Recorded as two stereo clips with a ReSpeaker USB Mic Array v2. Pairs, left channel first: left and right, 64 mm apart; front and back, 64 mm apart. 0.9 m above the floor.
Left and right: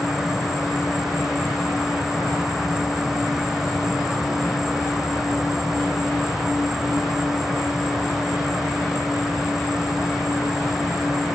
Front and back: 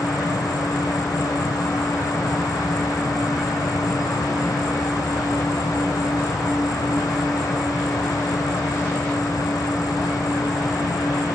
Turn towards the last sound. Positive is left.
turn(degrees=-5)